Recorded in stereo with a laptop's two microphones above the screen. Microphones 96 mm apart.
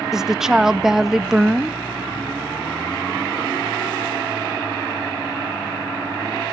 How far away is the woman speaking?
About 0.6 m.